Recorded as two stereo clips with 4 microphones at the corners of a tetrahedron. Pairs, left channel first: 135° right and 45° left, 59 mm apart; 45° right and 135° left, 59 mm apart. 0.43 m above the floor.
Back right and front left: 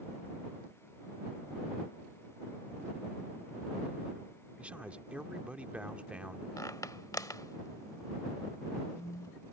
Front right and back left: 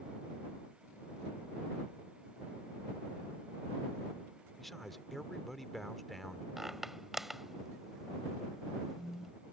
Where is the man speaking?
40° left.